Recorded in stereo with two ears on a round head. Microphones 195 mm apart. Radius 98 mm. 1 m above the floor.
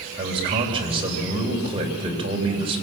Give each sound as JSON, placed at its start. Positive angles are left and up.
{"t": 0.2, "sound": "a man speaking", "side_deg": -25, "distance_m": 3.5}